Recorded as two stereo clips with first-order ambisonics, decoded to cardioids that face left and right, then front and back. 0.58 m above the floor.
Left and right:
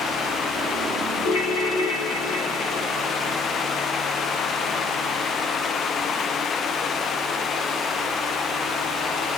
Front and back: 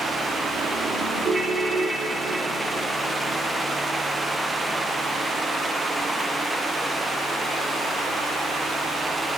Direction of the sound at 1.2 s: 100° left.